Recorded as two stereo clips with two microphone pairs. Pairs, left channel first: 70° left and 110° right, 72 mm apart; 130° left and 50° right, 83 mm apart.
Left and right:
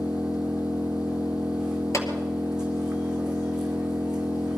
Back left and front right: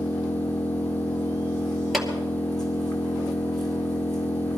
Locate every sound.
0.0 s an engine running: 170° left, 2 m
1.9 s a clap: 40° left, 2 m